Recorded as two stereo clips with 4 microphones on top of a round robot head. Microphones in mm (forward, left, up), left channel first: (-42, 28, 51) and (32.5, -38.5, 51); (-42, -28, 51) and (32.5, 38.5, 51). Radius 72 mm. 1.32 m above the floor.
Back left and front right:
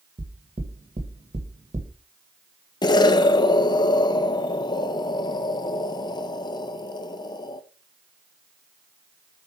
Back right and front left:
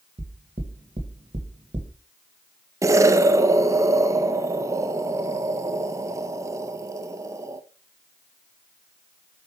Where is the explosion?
100° left, 0.6 m.